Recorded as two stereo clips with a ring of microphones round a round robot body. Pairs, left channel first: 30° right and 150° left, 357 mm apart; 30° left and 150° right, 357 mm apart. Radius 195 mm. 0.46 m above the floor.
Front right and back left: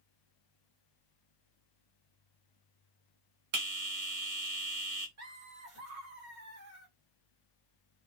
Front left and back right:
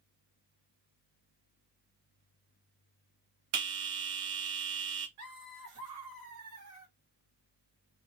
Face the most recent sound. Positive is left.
turn(degrees=180)